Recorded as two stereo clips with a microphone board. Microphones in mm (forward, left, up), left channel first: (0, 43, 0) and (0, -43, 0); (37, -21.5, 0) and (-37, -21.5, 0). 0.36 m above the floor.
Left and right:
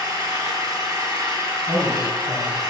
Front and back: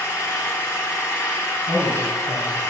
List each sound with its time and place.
0.0 s an engine running: 50° right, 2.5 m
1.7 s a man speaking: 105° right, 4.5 m